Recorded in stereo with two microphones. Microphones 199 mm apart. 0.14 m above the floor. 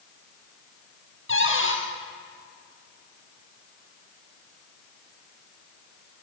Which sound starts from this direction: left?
A cupboard door, at 1.3 s.